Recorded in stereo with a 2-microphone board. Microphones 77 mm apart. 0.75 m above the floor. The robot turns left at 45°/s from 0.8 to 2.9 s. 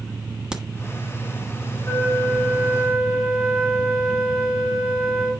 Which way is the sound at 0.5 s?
10° right (ahead or behind).